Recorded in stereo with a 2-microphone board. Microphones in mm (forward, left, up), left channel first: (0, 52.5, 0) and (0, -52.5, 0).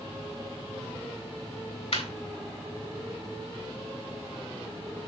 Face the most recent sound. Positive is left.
turn(degrees=75)  # may be behind; listen again after turning